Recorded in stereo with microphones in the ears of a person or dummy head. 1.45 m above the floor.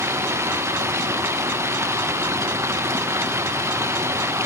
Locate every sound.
0.0 s running water: 5° right (ahead or behind), 0.9 m